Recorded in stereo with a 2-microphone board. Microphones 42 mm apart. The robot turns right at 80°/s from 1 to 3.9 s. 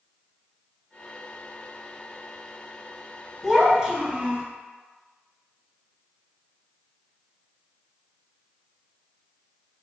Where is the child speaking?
Straight behind, 0.9 m; by 4.5 s 140° right, 0.9 m.